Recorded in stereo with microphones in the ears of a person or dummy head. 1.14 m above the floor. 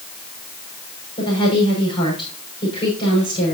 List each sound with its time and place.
1.2 s a woman speaking: 25° left (ahead or behind), 5.5 m